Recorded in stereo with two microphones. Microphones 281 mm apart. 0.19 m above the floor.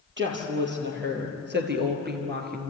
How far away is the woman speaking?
About 5 m.